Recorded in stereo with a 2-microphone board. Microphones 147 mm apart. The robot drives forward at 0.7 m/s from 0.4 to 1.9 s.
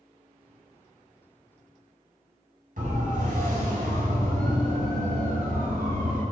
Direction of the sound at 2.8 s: 70° right (ahead or behind).